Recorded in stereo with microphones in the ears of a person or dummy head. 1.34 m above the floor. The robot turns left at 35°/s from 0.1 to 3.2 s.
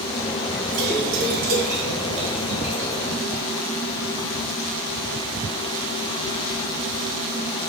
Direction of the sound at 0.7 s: 80° right.